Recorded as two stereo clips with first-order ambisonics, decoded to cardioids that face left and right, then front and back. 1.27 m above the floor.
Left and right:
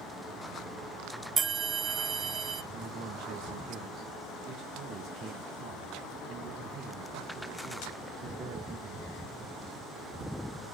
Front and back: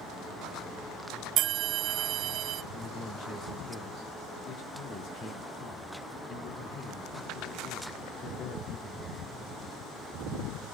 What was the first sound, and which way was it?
A bell, 150° right.